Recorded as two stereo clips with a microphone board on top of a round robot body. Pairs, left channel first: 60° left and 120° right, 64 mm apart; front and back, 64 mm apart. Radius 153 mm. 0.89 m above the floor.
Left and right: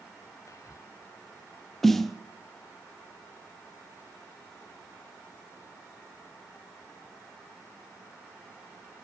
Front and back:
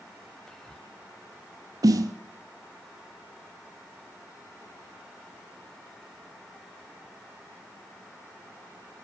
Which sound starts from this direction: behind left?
A snare drum, at 1.8 s.